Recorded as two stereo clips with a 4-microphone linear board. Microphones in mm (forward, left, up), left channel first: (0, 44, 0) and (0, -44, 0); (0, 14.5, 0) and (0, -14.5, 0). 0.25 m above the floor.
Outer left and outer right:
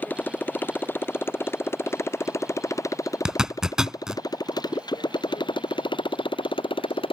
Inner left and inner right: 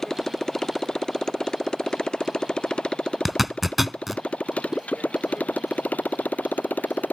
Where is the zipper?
10° right (ahead or behind).